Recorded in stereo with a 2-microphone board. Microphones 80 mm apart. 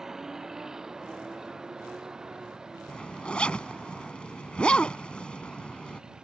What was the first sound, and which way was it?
A vehicle, 5° right (ahead or behind).